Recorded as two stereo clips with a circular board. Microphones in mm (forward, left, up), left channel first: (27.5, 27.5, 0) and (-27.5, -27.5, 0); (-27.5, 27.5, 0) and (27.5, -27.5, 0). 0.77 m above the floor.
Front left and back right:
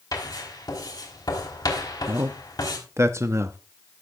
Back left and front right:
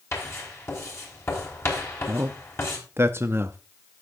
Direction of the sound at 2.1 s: 95° right.